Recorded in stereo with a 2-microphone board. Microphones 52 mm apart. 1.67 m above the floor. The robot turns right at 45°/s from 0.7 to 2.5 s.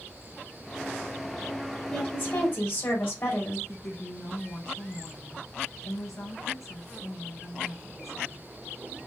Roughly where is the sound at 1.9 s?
Left.